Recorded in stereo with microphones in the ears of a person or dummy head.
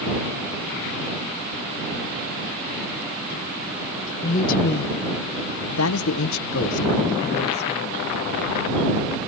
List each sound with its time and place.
4.2 s a man speaking: 40° left (ahead or behind)